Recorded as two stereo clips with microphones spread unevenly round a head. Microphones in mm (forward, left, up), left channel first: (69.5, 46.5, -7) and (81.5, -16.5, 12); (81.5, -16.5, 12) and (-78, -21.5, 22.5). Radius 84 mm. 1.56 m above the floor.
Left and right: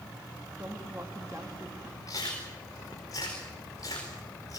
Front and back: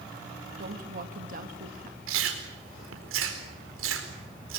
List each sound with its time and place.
0.6 s a woman speaking: 140° right, 2 m
2.1 s chewing: 170° left, 4.5 m